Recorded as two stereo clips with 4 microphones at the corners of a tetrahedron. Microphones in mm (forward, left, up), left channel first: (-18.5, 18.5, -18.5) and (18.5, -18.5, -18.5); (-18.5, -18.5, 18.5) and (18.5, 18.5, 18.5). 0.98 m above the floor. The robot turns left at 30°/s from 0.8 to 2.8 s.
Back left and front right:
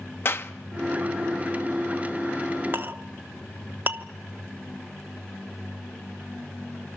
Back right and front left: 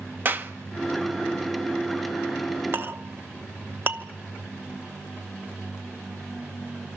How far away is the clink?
About 1.0 m.